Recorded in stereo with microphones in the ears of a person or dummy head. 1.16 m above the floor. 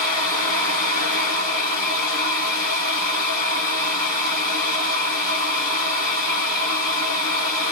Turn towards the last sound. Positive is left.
turn(degrees=-40)  # may be behind; listen again after turning